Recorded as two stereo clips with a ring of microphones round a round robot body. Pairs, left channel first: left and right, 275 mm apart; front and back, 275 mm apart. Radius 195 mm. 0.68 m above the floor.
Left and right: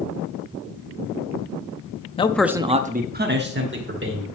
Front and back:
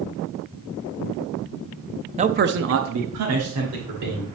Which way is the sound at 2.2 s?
135° left.